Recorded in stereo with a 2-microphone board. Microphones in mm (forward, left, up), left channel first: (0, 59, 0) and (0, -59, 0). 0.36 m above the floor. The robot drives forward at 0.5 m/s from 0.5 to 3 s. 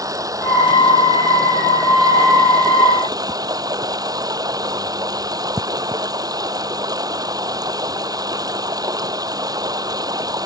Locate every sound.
0.0 s running water: 30° right (ahead or behind); by 10.5 s 35° right (ahead or behind)